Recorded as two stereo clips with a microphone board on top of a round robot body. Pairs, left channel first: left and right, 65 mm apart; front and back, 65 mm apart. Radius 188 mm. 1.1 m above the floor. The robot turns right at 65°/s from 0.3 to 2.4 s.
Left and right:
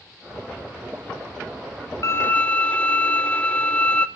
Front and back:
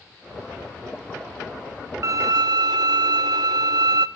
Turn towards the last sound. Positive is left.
turn(degrees=160)